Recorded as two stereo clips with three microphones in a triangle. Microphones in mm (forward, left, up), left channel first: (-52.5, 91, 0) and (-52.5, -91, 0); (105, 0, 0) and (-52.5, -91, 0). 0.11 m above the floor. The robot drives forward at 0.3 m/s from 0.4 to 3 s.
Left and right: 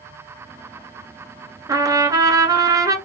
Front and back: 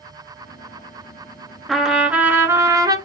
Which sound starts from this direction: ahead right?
A trumpet, at 1.7 s.